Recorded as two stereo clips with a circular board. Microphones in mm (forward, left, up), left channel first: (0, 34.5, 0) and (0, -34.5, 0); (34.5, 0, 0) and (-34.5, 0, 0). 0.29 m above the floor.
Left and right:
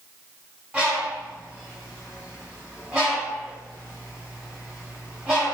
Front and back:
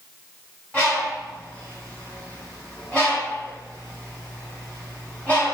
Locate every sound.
0.7 s a bird: 35° right, 1.6 m